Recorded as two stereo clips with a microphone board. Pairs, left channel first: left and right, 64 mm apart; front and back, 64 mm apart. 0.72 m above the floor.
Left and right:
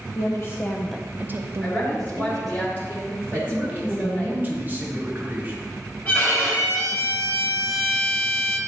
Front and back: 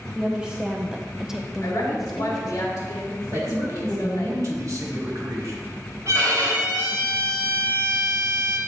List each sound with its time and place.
0.1 s a woman speaking: 105° left, 0.8 m; by 2.6 s 85° right, 1.5 m
1.6 s a woman speaking: 30° left, 2.5 m
3.3 s a man speaking: 150° right, 1.4 m
6.0 s a violin: 145° left, 3 m